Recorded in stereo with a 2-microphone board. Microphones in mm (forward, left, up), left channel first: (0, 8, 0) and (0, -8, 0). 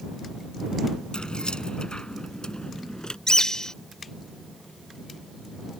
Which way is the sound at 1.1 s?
75° left (ahead or behind).